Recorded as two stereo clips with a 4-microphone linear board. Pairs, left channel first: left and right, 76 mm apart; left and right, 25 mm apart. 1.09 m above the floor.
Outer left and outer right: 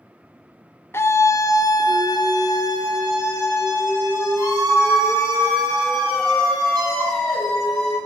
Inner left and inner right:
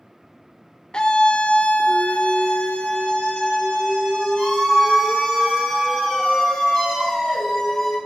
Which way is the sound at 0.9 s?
35° left (ahead or behind).